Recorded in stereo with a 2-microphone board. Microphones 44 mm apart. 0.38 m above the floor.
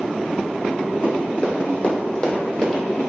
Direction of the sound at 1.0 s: 50° left (ahead or behind).